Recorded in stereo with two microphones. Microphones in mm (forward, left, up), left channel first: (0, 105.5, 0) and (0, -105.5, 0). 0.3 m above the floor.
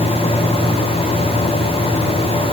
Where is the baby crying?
No baby crying in this recording.